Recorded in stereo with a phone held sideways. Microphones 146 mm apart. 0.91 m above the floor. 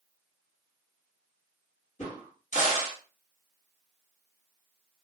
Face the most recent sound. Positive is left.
turn(degrees=55)  # may be behind; listen again after turning